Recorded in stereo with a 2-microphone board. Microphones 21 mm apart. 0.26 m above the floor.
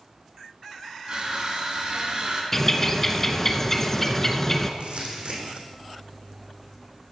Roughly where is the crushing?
Right.